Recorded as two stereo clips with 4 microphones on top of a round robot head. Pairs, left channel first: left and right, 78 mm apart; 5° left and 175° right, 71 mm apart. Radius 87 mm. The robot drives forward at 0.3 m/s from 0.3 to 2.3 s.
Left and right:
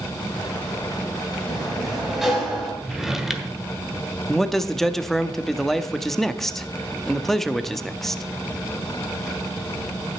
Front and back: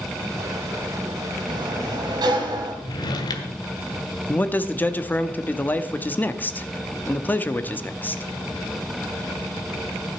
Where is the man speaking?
10° left, 0.8 m.